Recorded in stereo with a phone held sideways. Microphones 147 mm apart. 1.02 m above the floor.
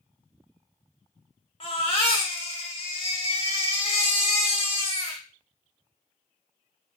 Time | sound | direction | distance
1.6 | a baby crying | 40° left (ahead or behind) | 0.9 m